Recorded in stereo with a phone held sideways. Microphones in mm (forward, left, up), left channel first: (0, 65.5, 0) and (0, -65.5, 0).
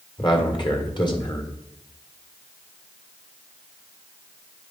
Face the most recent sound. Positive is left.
turn(degrees=35)  # may be behind; listen again after turning